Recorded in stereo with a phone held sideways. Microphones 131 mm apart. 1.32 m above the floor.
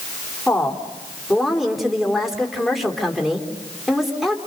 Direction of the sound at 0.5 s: Centre (ahead or behind).